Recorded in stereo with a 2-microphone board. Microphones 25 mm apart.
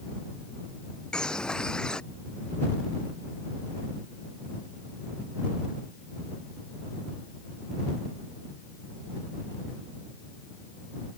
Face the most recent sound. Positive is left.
turn(degrees=35)  # may be behind; listen again after turning